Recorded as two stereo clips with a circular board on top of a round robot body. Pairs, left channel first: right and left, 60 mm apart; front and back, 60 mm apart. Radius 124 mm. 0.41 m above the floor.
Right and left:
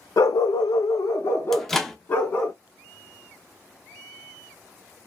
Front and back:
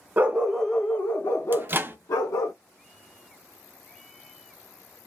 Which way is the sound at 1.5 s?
170° right.